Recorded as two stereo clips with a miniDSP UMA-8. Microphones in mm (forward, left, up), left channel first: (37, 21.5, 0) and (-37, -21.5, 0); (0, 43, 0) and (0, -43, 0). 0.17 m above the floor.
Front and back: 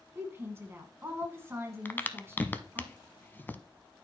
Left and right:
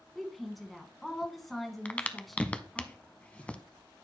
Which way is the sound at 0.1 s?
Straight behind.